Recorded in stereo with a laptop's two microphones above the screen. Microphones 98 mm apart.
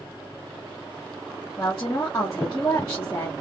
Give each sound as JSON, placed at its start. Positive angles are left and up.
{"t": 1.6, "sound": "a woman speaking", "side_deg": 40, "distance_m": 0.8}